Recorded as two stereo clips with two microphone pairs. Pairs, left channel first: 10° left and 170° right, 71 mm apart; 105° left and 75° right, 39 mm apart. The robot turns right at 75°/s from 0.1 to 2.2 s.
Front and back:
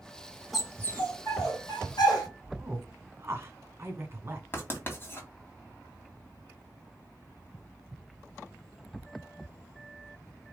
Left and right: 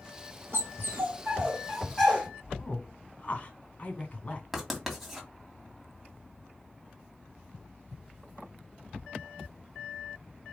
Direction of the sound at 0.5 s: 85° right.